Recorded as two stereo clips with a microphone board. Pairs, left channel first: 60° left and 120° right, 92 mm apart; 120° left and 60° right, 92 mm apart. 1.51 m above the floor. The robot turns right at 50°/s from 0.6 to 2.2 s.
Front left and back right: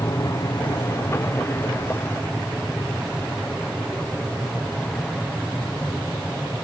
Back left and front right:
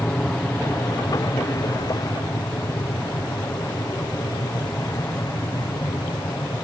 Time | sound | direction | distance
0.0 | an aircraft | 55° left | ?